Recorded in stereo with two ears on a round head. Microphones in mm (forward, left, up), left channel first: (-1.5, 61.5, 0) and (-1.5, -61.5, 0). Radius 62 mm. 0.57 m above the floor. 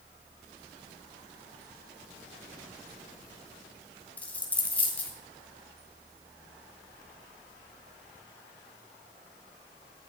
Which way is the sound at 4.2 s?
10° left (ahead or behind).